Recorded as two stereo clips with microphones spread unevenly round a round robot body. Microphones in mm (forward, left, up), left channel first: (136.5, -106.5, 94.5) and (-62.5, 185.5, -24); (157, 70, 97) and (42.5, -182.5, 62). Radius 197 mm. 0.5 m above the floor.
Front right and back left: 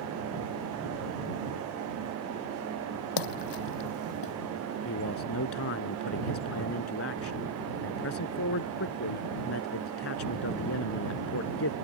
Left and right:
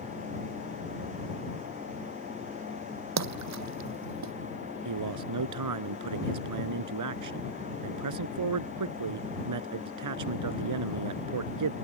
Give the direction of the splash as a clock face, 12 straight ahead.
3 o'clock.